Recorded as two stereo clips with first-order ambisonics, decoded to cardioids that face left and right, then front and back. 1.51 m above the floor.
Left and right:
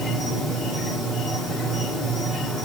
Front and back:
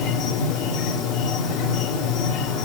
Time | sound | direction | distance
0.0 | an insect | 25° left | 1.7 m